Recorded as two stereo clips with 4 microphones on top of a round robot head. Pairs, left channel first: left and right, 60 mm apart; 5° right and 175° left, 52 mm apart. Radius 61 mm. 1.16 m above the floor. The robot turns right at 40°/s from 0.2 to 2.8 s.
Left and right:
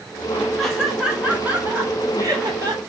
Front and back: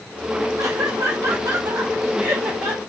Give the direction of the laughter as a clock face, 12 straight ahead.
6 o'clock.